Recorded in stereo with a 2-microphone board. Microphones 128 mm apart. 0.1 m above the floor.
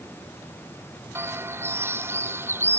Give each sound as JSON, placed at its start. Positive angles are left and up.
{"t": 1.1, "sound": "a bird", "side_deg": -20}